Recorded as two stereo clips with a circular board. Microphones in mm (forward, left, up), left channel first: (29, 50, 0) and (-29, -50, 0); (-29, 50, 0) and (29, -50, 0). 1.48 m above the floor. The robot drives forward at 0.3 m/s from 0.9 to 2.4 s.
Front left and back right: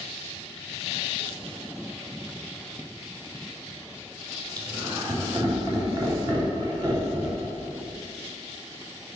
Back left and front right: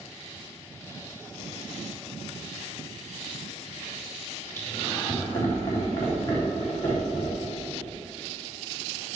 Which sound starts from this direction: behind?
Laughter, at 4.6 s.